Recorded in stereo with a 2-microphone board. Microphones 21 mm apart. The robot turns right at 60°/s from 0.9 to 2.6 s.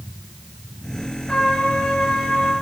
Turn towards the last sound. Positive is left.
turn(degrees=125)